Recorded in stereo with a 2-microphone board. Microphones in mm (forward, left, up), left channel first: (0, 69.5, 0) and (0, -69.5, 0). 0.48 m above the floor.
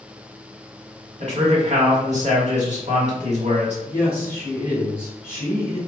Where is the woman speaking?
20° left (ahead or behind), 1.9 m.